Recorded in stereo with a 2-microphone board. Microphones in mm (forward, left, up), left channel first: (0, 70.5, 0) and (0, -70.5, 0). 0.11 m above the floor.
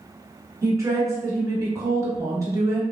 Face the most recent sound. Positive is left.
turn(degrees=-25)  # may be behind; listen again after turning